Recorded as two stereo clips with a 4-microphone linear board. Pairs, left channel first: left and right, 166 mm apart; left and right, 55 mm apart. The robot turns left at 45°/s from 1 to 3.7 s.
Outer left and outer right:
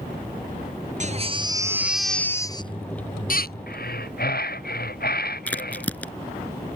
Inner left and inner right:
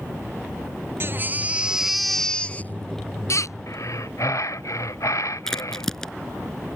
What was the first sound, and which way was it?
A baby crying, 135° right.